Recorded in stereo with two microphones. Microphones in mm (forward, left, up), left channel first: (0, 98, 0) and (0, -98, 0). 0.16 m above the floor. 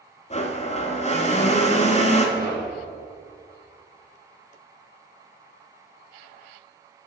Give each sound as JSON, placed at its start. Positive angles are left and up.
{"t": 0.3, "sound": "a blender", "side_deg": 35, "distance_m": 0.8}
{"t": 2.4, "sound": "knocking", "side_deg": -50, "distance_m": 2.0}